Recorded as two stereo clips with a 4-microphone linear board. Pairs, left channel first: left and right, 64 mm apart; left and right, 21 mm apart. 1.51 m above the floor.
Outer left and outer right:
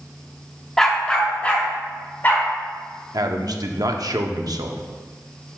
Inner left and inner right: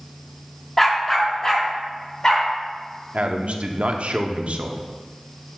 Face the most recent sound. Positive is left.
turn(degrees=-75)  # may be behind; listen again after turning